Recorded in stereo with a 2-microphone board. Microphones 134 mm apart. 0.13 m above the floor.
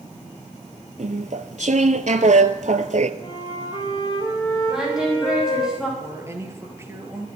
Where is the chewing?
65° right (ahead or behind), 1.0 m.